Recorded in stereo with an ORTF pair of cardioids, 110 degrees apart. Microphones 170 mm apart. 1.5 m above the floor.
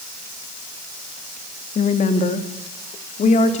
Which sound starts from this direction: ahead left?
A woman speaking, at 1.8 s.